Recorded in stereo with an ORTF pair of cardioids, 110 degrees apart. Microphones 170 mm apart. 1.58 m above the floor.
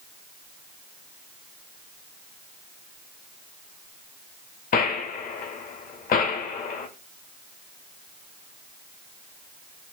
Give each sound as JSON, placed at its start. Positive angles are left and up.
{"t": 4.7, "sound": "a gunshot", "azimuth_deg": 55, "distance_m": 1.6}